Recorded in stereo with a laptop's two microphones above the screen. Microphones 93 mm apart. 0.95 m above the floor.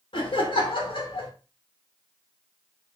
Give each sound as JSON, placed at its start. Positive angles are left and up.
{"t": 0.1, "sound": "laughter", "side_deg": 65, "distance_m": 1.0}